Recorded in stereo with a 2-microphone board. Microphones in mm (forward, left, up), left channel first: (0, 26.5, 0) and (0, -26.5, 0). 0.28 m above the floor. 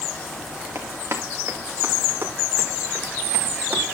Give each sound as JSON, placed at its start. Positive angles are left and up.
{"t": 0.8, "sound": "running footsteps", "side_deg": -50, "distance_m": 3.5}